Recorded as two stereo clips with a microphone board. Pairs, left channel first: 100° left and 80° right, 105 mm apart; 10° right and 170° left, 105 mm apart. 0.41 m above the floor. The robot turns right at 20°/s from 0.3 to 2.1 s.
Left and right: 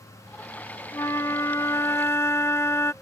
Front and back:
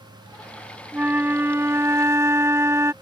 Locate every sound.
0.9 s a flute: 115° left; by 2.9 s 135° left